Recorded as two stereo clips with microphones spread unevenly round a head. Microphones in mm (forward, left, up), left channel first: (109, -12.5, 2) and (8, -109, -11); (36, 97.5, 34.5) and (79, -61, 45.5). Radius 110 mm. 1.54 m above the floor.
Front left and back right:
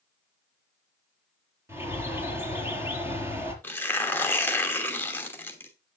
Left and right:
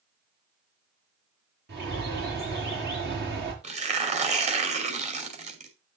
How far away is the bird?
About 5 m.